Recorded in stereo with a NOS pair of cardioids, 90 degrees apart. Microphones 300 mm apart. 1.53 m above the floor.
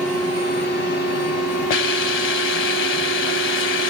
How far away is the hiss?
About 1.1 m.